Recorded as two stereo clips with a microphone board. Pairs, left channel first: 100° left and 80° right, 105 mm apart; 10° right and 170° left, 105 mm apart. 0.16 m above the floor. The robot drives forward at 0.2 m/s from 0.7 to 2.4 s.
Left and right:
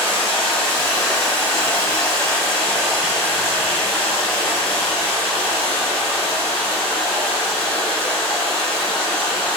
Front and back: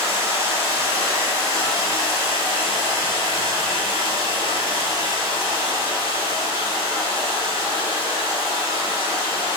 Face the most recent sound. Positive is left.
turn(degrees=160)